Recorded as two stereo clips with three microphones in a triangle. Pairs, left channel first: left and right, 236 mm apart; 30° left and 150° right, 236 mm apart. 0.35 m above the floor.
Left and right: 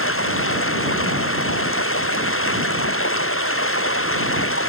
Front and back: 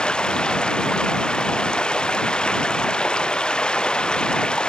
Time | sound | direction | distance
0.0 | running water | 115° left | ?